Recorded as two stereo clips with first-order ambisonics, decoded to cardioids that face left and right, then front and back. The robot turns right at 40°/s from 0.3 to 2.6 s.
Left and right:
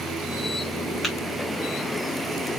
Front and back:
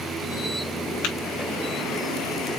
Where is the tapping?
Straight ahead, 3 m; by 1.1 s 5° left, 3 m.